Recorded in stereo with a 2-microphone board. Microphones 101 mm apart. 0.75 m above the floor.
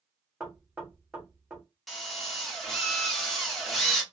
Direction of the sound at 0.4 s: 10° right (ahead or behind).